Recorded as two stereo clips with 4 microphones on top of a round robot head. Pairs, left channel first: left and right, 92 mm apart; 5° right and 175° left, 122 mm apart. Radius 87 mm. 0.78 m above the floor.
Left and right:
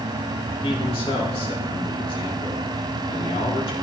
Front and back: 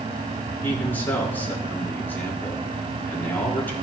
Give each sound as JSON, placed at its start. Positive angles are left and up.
{"t": 0.6, "sound": "a man speaking", "azimuth_deg": 70, "distance_m": 3.0}